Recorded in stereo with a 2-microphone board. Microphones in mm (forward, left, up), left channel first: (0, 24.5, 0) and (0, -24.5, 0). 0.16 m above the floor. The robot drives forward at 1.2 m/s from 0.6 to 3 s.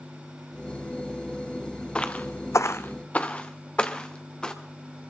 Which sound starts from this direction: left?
Footsteps, at 1.9 s.